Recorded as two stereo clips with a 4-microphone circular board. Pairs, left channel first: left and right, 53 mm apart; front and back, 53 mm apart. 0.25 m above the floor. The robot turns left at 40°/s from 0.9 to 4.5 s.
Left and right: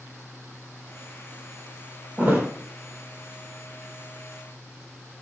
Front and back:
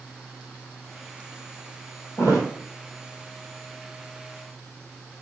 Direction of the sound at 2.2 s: 20° right.